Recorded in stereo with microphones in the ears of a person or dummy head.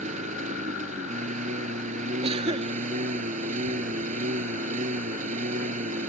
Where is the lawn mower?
45° right (ahead or behind).